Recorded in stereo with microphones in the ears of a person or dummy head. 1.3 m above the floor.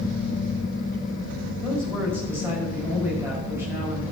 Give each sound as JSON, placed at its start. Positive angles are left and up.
{"t": 1.6, "sound": "a woman speaking", "side_deg": -10, "distance_m": 5.5}